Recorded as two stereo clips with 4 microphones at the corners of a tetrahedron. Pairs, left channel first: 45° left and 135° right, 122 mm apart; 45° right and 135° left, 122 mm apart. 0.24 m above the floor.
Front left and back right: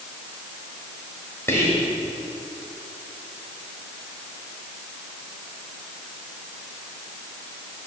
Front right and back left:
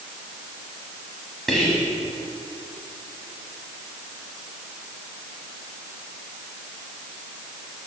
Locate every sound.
1.5 s whispering: 40° left, 1.0 m